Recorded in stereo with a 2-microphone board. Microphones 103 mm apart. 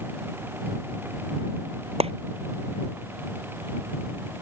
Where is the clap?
75° right (ahead or behind).